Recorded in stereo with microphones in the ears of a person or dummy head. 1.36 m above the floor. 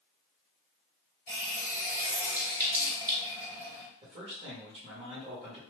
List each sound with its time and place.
1.3 s a running tap: 15° right (ahead or behind), 0.8 m
4.0 s a man speaking: 30° right (ahead or behind), 1.5 m